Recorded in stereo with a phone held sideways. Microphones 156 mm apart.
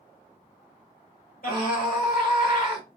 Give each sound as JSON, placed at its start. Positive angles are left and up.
{"t": 1.4, "sound": "a scream", "side_deg": 70, "distance_m": 2.0}